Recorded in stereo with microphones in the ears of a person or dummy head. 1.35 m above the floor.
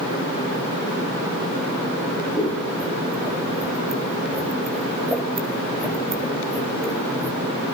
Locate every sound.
2.4 s scissors: 5° left (ahead or behind), 3 m